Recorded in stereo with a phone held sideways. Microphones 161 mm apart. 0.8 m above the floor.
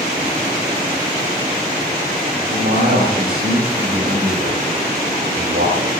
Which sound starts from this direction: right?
A man speaking, at 2.5 s.